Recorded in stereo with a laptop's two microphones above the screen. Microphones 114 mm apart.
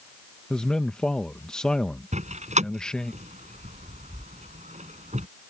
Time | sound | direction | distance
0.5 | a man speaking | 5° left (ahead or behind) | ?
2.1 | a door slam | 80° right | ?